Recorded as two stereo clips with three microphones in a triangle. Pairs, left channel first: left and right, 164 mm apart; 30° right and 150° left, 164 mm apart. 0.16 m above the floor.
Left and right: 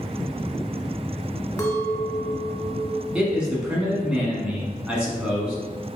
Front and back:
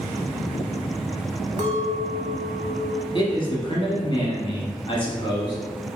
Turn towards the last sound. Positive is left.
turn(degrees=-10)